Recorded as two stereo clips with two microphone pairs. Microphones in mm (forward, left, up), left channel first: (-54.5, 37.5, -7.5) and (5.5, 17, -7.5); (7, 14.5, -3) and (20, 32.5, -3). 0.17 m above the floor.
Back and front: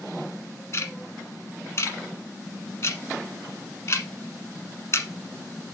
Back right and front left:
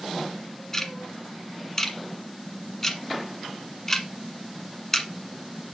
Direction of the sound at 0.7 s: 165° left.